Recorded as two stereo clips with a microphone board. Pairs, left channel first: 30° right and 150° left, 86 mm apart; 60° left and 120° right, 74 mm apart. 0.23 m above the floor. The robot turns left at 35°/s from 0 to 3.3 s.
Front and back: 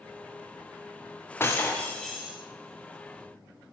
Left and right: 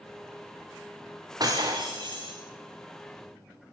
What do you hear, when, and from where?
1.4 s breaking glass: 90° right, 4 m; by 2.4 s 125° right, 4 m